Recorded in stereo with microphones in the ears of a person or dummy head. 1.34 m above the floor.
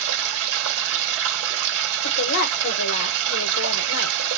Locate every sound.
0.0 s running water: 60° right (ahead or behind), 1.8 m
2.0 s a woman speaking: 50° left (ahead or behind), 0.9 m